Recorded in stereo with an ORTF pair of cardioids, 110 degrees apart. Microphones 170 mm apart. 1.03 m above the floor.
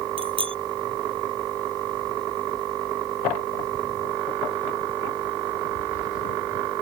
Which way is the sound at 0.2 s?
30° right.